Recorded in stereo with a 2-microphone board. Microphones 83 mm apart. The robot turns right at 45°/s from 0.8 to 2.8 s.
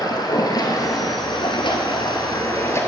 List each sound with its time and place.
0.0 s running water: 55° left, 1.1 m; by 2.9 s 145° left, 1.1 m